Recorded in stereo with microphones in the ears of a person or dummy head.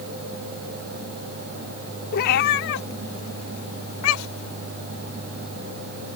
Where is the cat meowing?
55° left (ahead or behind); by 4.5 s 80° left.